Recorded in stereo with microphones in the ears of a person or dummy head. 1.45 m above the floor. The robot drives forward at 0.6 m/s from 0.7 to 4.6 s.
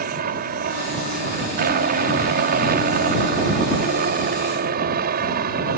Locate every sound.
0.0 s a helicopter: 50° right (ahead or behind)